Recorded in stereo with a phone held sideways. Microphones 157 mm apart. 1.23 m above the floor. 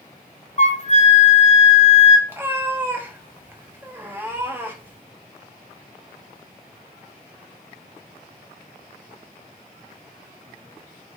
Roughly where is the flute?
Left.